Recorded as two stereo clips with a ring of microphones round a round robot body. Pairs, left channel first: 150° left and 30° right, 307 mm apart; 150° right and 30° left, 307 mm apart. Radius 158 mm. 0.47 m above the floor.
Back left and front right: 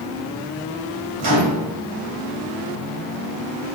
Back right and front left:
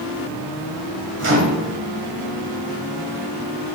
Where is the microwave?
20° right, 2.0 m.